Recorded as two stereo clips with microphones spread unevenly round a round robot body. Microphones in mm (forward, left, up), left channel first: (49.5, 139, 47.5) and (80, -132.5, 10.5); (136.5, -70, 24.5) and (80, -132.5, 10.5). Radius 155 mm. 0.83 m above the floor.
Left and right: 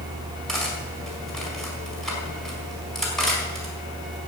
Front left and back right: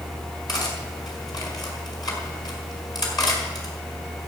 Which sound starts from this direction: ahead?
Cutlery clinking, at 0.5 s.